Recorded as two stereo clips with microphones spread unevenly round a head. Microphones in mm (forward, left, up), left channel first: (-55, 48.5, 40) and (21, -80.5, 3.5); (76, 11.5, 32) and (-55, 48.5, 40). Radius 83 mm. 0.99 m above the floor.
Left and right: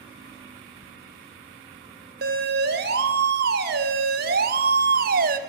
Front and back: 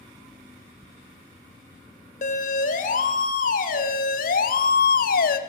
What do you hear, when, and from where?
0.8 s ticking: 110° left, 2.5 m
2.2 s a siren: 55° right, 4.5 m; by 5.4 s 30° right, 2 m